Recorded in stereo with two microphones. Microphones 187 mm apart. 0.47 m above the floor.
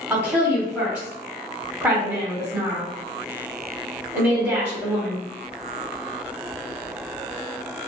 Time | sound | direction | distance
0.1 | a woman speaking | 10° right (ahead or behind) | 1.0 m